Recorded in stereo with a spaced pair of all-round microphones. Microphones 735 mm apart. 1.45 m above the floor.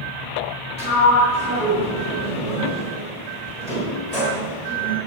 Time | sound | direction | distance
0.8 | a sliding door | 60° left (ahead or behind) | 6 m